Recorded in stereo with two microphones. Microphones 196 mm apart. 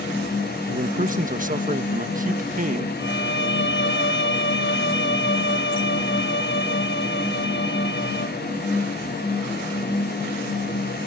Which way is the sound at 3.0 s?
70° left (ahead or behind).